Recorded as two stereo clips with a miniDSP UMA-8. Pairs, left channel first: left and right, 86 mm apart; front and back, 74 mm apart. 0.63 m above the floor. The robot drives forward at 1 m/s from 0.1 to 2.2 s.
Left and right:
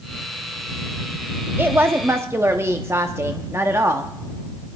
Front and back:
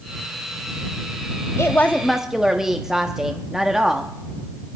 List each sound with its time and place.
1.6 s a woman speaking: 35° right, 0.9 m; by 4.1 s 105° right, 0.7 m